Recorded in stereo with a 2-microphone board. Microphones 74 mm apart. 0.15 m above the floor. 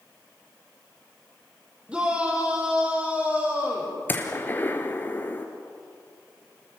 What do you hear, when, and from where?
1.9 s a shout: 15° right (ahead or behind), 6.5 m; by 4.0 s 20° right (ahead or behind), 9 m
4.1 s a gunshot: 25° left (ahead or behind), 2.5 m